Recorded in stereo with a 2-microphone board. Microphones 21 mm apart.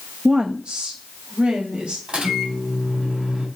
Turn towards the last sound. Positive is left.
turn(degrees=-60)  # may be behind; listen again after turning